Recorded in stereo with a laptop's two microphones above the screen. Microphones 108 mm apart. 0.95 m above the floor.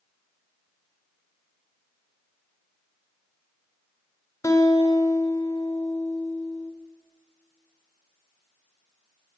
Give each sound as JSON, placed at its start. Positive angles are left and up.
{"t": 4.4, "sound": "a guitar", "side_deg": 30, "distance_m": 1.7}